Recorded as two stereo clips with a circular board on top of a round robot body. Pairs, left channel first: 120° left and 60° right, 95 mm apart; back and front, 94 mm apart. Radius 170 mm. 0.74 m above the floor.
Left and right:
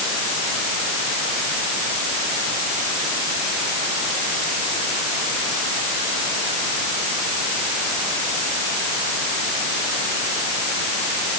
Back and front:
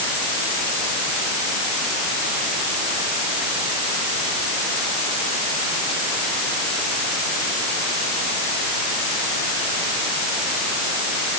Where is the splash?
I don't hear a splash.